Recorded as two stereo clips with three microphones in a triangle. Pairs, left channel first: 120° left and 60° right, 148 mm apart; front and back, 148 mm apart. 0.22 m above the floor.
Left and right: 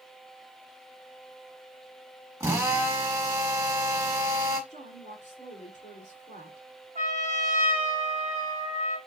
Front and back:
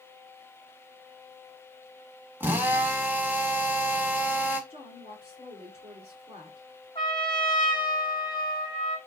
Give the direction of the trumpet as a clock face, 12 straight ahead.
2 o'clock.